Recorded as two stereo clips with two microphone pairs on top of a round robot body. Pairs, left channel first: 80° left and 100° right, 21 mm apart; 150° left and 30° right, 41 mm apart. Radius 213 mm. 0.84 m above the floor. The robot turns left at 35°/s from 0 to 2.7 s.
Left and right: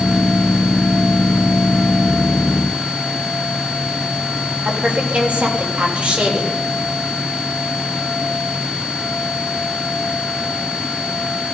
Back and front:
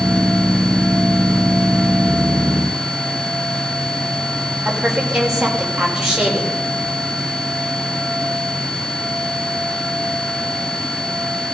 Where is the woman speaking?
105° right, 4.5 m.